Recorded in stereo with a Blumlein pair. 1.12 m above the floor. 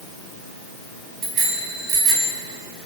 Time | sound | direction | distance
1.2 | a bicycle bell | 25° right | 7 m